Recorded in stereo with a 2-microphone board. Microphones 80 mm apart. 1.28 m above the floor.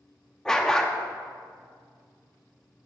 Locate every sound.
0.5 s a dog barking: 10° left (ahead or behind), 0.7 m